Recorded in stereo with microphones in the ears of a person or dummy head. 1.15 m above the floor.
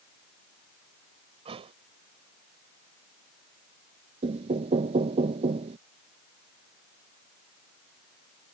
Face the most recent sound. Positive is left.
turn(degrees=-40)  # may be behind; listen again after turning